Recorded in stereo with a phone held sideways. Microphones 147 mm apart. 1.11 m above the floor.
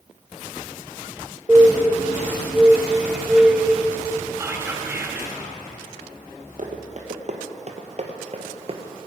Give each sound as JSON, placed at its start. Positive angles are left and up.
{"t": 1.5, "sound": "a bird", "side_deg": -5, "distance_m": 1.1}
{"t": 4.4, "sound": "whispering", "side_deg": -15, "distance_m": 1.3}
{"t": 6.6, "sound": "running footsteps", "side_deg": -55, "distance_m": 2.5}